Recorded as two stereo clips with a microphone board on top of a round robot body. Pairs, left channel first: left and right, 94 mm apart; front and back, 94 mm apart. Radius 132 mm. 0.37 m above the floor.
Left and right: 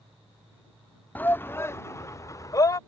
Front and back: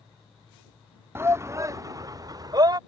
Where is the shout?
145° left; by 2.8 s 140° left.